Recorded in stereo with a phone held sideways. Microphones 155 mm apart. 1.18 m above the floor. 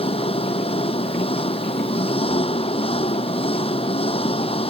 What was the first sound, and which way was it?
An engine running, 40° left (ahead or behind).